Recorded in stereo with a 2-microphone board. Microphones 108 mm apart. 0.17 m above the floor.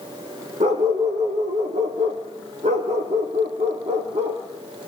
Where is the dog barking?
75° right (ahead or behind), 3 m.